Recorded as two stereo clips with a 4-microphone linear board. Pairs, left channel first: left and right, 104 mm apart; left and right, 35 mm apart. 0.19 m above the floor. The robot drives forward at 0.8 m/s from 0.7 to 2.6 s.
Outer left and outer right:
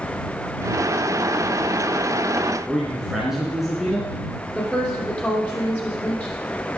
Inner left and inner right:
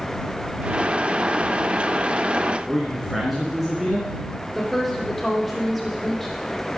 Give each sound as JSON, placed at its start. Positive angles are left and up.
{"t": 2.7, "sound": "a man speaking", "side_deg": -5, "distance_m": 2.5}
{"t": 4.5, "sound": "a woman speaking", "side_deg": 10, "distance_m": 6.0}